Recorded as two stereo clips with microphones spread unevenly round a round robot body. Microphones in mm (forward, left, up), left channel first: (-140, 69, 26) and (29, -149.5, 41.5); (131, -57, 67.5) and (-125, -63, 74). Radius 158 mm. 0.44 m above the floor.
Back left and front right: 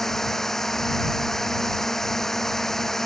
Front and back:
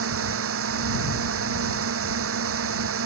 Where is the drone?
145° right.